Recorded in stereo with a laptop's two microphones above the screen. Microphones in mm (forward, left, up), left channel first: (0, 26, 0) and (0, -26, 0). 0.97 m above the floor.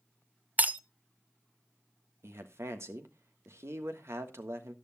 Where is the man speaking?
60° right (ahead or behind), 1.5 m.